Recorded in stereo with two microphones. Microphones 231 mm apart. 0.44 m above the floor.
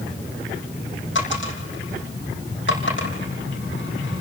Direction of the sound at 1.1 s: 60° left (ahead or behind).